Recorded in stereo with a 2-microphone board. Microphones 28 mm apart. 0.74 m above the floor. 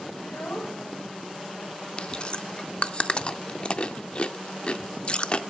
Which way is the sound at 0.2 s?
75° left (ahead or behind).